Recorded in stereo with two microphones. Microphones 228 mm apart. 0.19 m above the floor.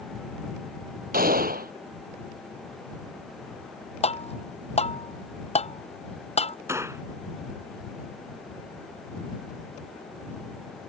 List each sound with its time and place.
1.1 s a gunshot: 40° right (ahead or behind)
4.0 s tapping: 30° left (ahead or behind)
6.7 s a gunshot: 10° right (ahead or behind)